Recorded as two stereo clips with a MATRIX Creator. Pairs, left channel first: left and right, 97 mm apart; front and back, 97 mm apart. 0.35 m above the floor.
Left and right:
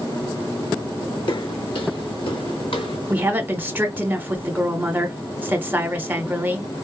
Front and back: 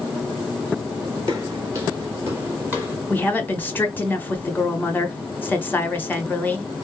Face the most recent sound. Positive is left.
turn(degrees=-45)